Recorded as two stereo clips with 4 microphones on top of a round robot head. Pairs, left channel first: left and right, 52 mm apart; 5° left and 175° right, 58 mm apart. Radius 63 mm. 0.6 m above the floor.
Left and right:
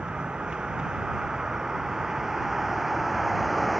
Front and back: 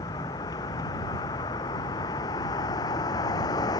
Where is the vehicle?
15° right; by 3.8 s straight ahead.